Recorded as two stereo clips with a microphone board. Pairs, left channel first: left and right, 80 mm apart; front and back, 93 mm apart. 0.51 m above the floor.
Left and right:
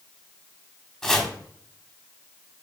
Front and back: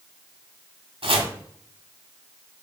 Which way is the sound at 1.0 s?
170° left.